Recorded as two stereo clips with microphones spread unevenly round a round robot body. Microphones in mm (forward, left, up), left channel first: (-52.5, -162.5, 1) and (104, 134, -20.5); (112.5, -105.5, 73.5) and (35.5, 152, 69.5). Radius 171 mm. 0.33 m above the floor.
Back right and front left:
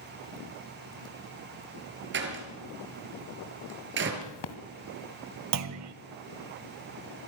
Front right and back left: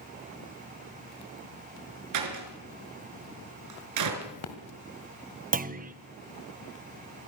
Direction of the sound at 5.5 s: 55° left.